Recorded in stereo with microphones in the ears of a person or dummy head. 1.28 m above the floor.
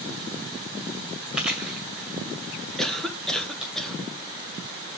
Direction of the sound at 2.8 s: 5° left (ahead or behind).